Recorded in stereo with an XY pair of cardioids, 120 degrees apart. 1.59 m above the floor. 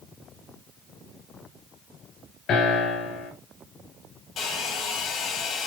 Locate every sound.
2.5 s a piano: 60° left, 6.5 m
4.4 s a hair dryer: 55° left, 6.5 m